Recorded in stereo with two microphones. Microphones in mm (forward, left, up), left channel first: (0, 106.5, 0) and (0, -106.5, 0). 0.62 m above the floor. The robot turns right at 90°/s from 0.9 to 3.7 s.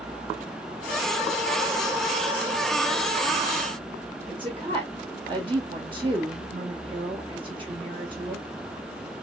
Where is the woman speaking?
25° right (ahead or behind), 1.3 m.